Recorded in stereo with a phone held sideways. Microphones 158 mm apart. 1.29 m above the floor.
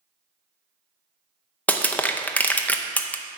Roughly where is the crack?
I don't hear a crack.